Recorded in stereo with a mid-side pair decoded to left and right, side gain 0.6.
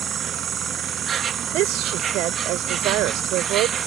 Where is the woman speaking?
70° right.